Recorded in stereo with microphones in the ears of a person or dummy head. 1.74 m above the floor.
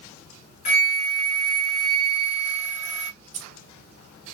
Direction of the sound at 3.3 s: 40° right (ahead or behind).